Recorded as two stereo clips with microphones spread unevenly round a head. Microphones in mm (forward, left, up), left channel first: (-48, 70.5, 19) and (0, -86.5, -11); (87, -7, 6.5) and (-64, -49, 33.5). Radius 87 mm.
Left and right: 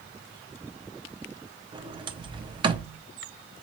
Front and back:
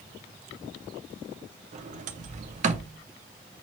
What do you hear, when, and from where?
1.7 s a sliding door: 140° right, 0.5 m